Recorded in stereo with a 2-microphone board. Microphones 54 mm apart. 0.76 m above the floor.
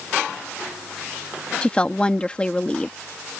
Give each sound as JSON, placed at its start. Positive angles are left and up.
{"t": 1.6, "sound": "a woman speaking", "side_deg": 20}